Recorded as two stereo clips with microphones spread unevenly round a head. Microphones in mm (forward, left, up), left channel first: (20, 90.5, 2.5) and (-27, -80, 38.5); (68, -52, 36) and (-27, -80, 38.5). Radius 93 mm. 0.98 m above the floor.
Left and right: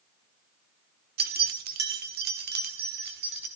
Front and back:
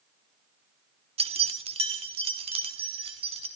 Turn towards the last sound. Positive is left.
turn(degrees=-140)